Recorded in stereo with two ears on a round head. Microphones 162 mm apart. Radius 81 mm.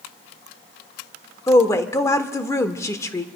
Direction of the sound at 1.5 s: 15° left (ahead or behind).